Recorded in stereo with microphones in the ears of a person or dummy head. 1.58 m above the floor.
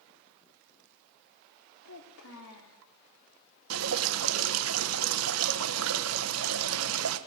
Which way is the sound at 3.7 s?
85° right.